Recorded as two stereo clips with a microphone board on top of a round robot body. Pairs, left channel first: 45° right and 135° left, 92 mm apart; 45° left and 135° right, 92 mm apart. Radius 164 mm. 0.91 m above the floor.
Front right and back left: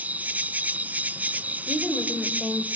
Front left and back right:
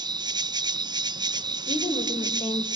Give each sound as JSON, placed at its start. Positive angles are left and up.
{"t": 0.0, "sound": "an insect", "azimuth_deg": -155, "distance_m": 0.9}
{"t": 1.7, "sound": "a woman speaking", "azimuth_deg": 40, "distance_m": 4.5}